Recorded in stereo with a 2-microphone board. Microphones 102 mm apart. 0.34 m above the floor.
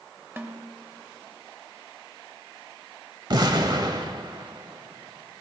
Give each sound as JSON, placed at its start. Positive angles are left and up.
{"t": 0.4, "sound": "a snare drum", "side_deg": -25, "distance_m": 1.0}
{"t": 3.3, "sound": "an explosion", "side_deg": -45, "distance_m": 0.9}